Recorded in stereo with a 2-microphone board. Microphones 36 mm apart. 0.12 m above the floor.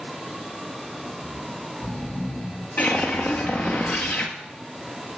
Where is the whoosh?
45° left (ahead or behind), 1.8 m.